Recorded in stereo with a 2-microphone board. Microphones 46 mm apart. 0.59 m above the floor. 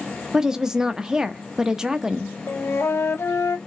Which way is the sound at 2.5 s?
70° left (ahead or behind).